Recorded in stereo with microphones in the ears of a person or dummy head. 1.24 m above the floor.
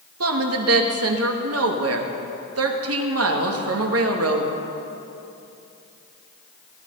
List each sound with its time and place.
0.2 s a woman speaking: 75° right (ahead or behind), 2.0 m